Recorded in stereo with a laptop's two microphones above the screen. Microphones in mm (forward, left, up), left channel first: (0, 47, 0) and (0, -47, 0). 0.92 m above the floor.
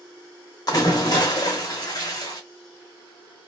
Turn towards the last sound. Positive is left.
turn(degrees=45)  # may be behind; listen again after turning